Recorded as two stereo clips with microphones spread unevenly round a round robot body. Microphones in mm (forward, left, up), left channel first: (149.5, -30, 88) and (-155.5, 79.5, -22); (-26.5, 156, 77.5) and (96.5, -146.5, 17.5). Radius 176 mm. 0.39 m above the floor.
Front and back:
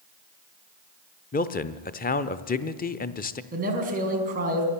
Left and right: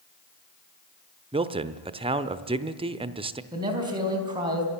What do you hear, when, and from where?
1.3 s a man speaking: 100° right, 0.8 m
3.5 s a man speaking: 140° right, 3.5 m